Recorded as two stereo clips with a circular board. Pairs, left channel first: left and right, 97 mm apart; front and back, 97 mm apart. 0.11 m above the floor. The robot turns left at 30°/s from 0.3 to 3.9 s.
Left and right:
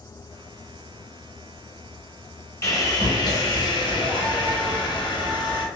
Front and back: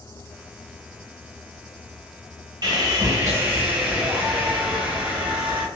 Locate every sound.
2.6 s sawing: 145° left, 1.2 m; by 5.7 s 110° left, 1.2 m